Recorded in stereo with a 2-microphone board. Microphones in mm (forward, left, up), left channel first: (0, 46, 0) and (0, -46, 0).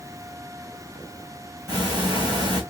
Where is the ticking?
45° right (ahead or behind), 2.0 m.